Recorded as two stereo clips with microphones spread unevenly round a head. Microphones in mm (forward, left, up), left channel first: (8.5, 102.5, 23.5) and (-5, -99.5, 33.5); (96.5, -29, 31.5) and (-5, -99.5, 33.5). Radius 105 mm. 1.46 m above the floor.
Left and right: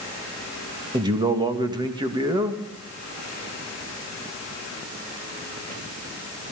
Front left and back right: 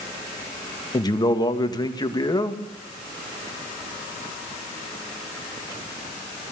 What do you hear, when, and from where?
0.9 s a man speaking: 25° right, 2.5 m